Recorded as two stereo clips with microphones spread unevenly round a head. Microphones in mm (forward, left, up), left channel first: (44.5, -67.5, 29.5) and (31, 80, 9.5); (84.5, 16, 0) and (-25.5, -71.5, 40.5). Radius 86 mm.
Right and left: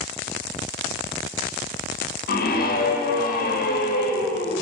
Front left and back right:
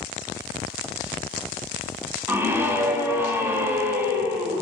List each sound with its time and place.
2.3 s a scream: 60° right, 2.5 m